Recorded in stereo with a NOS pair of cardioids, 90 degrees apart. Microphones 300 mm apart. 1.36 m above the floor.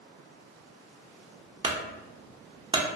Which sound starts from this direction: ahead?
A clunk, at 1.6 s.